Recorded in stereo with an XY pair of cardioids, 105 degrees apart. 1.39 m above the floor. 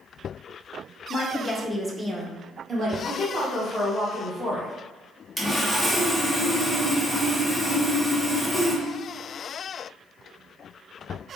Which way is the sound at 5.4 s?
5° left.